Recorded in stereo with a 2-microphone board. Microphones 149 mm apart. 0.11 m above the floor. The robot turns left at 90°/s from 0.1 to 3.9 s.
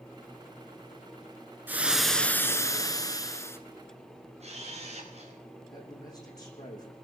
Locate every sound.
1.7 s frying: 15° right (ahead or behind), 1.7 m; by 3.6 s 15° left (ahead or behind), 1.7 m
4.4 s a camera shutter: 45° right (ahead or behind), 8.5 m
5.7 s a man speaking: 25° left (ahead or behind), 7.5 m